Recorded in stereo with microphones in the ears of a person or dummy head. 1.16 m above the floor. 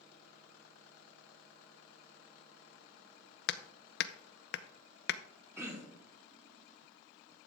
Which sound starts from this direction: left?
Hammering, at 3.5 s.